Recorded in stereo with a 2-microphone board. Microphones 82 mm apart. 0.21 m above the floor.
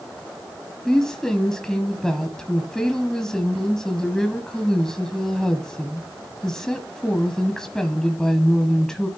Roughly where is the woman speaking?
Centre.